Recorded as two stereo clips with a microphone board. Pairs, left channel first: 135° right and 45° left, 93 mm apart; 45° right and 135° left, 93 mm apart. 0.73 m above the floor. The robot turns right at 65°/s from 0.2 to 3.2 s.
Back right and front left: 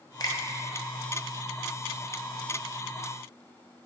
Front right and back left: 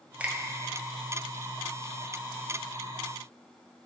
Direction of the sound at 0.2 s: 155° right.